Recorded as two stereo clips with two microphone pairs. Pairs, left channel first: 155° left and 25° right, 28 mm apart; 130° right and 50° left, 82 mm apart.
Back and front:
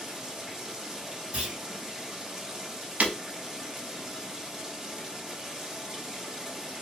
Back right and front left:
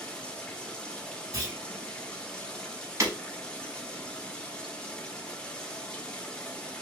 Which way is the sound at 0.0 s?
65° right.